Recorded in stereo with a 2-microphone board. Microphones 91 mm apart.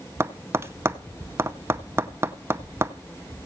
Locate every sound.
0.2 s tapping: 30° right (ahead or behind), 0.5 m